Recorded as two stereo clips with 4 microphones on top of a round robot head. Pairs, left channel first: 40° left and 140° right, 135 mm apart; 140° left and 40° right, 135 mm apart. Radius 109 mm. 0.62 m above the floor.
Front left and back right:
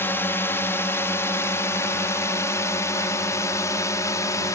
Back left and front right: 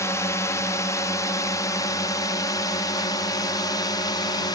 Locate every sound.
0.0 s a drone: 95° left